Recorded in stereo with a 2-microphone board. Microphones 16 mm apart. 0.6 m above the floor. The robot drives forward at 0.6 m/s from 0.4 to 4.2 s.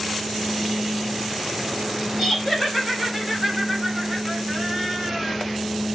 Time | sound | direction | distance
2.2 | laughter | 15° right (ahead or behind) | 3 m